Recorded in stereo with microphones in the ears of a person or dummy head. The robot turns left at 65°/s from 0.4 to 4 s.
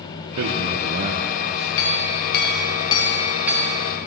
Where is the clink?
100° left, 1.4 m; by 3.8 s 30° right, 1.4 m.